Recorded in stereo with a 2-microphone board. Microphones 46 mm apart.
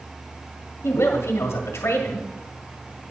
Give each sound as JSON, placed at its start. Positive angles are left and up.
{"t": 0.8, "sound": "a woman speaking", "side_deg": 70, "distance_m": 1.9}